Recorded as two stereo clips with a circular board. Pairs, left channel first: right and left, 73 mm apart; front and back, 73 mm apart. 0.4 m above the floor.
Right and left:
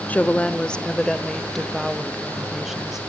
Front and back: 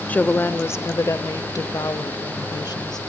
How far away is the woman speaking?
About 0.9 m.